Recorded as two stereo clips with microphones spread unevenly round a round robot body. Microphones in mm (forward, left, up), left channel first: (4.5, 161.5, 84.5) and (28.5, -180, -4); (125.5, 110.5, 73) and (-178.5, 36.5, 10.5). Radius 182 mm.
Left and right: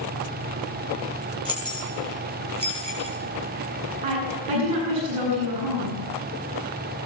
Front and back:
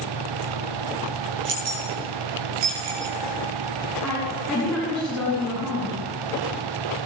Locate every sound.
1.4 s keys jangling: 160° right, 7.5 m; by 3.2 s 165° right, 6.5 m
4.0 s a woman speaking: 75° right, 8.5 m